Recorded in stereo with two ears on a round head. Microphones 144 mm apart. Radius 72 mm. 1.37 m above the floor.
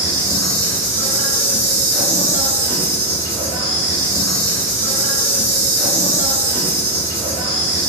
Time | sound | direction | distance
0.0 | an insect | 20° left (ahead or behind) | 1.9 m